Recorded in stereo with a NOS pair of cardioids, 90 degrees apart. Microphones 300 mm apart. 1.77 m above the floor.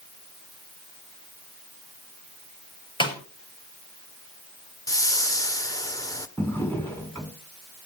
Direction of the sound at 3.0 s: 15° left.